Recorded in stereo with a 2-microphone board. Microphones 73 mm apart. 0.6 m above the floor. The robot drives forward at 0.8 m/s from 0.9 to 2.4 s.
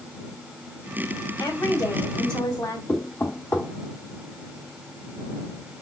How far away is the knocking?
About 1.2 m.